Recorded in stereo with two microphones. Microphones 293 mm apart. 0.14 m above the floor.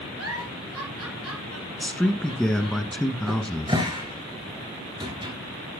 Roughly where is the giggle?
Right.